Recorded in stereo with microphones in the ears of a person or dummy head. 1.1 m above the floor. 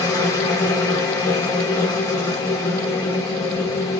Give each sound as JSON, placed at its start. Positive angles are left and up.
{"t": 0.0, "sound": "a machine running", "side_deg": 15, "distance_m": 1.0}